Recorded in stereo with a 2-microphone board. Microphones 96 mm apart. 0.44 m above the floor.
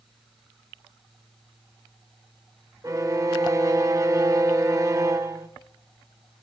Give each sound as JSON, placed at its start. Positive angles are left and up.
{"t": 2.8, "sound": "a violin", "side_deg": -40, "distance_m": 1.7}